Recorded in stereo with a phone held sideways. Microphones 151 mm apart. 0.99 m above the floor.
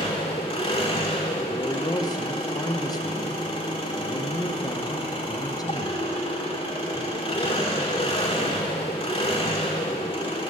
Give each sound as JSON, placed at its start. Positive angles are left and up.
{"t": 0.0, "sound": "an engine running", "side_deg": 35, "distance_m": 1.7}
{"t": 1.5, "sound": "a man speaking", "side_deg": 25, "distance_m": 0.9}